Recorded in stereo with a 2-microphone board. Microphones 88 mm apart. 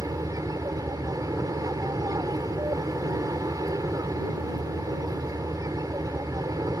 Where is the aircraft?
45° right (ahead or behind).